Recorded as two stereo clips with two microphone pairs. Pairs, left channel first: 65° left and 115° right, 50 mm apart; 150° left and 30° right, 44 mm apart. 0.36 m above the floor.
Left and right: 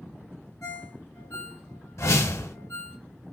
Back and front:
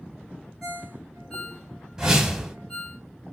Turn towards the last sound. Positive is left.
turn(degrees=50)